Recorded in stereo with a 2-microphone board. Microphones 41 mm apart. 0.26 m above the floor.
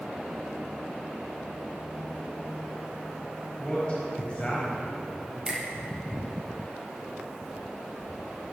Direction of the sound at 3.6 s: 30° left (ahead or behind).